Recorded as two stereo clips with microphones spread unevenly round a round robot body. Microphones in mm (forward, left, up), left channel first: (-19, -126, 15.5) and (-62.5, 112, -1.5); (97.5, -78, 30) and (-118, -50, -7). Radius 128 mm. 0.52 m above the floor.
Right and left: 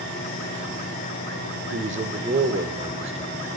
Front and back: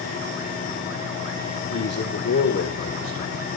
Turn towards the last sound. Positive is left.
turn(degrees=35)